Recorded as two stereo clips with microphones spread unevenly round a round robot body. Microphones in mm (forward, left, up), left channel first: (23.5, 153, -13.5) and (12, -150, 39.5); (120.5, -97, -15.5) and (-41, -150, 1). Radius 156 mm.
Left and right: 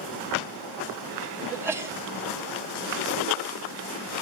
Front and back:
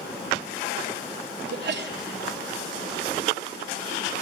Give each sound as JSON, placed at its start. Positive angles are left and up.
{"t": 1.5, "sound": "a sneeze", "azimuth_deg": 180, "distance_m": 1.8}